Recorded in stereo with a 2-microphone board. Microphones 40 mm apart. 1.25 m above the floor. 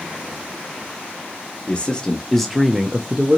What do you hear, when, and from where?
1.7 s a man speaking: 25° left (ahead or behind), 1.0 m; by 3.4 s 45° right (ahead or behind), 0.7 m